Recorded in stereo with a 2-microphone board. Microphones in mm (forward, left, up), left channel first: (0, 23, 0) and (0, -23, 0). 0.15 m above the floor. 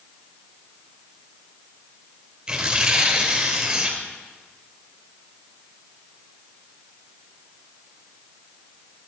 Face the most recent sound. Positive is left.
turn(degrees=-20)  # may be behind; listen again after turning